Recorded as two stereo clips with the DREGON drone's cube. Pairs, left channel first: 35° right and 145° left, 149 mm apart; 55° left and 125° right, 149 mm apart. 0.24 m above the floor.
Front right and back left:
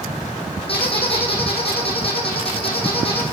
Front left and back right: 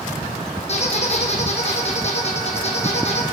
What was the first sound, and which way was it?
A squeak, 15° left.